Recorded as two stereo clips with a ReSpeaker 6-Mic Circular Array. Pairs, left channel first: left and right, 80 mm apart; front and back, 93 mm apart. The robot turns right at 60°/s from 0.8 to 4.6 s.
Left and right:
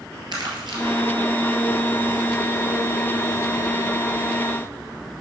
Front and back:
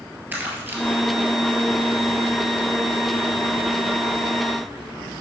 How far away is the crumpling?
About 2 m.